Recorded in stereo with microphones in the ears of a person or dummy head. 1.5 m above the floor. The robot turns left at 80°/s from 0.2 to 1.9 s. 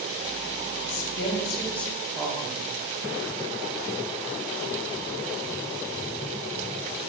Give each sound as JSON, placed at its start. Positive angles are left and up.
{"t": 0.9, "sound": "a woman speaking", "azimuth_deg": 80, "distance_m": 1.2}